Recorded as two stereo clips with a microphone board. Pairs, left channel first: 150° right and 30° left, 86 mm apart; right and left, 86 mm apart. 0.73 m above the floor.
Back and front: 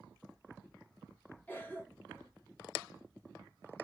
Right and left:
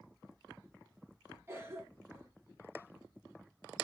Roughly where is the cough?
Behind left.